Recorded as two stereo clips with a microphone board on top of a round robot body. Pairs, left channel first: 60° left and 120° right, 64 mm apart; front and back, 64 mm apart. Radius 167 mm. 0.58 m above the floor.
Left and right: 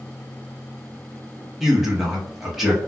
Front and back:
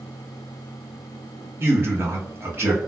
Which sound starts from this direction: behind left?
A man speaking, at 1.6 s.